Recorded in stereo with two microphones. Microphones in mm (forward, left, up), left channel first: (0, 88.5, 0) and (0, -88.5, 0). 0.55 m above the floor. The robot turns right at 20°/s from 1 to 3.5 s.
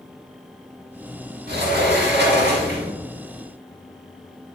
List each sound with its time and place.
1.5 s a sliding door: 80° right, 1.4 m; by 2.9 s 70° right (ahead or behind), 1.4 m